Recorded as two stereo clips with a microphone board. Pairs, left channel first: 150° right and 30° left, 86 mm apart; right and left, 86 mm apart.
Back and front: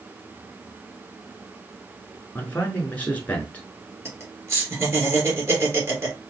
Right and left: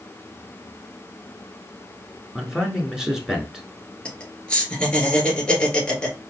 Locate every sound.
2.4 s a man speaking: 165° left, 1.1 m
4.0 s laughter: 15° right, 2 m